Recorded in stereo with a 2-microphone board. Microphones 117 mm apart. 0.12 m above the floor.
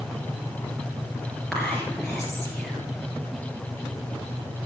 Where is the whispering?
5° left (ahead or behind), 2 m.